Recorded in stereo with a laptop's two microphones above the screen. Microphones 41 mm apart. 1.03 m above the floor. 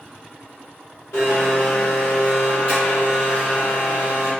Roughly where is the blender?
Left.